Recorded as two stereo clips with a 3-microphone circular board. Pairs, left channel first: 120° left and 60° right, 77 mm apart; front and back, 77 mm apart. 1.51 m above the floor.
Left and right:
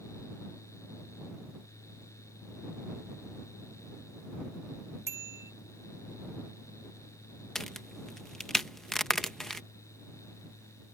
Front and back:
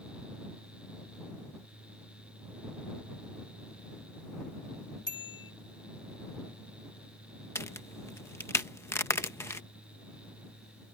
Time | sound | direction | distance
5.1 | a bicycle bell | 10° right | ?
7.5 | a crack | 35° left | ?